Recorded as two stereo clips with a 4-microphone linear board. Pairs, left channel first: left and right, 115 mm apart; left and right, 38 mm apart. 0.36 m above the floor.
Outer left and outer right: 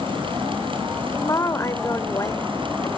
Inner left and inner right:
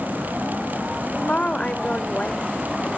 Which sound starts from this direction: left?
A woman speaking, at 1.2 s.